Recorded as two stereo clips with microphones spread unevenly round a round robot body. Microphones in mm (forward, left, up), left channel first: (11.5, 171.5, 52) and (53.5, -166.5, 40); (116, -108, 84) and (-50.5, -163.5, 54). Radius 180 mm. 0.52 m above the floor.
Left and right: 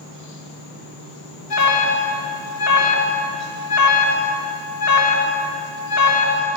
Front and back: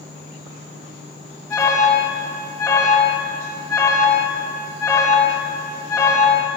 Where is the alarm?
105° left, 2.0 m.